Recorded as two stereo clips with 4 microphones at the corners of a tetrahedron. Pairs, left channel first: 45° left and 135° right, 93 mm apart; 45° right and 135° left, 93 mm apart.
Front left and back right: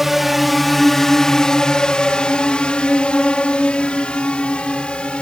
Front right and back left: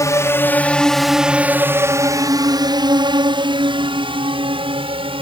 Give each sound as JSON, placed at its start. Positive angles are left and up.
{"t": 0.0, "sound": "a drone", "azimuth_deg": -50}